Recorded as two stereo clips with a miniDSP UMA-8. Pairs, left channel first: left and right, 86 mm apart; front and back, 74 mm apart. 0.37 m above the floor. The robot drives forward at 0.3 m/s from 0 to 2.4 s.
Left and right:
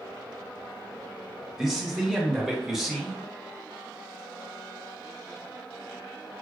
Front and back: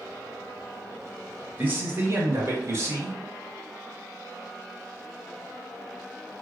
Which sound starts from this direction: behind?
A man speaking, at 1.6 s.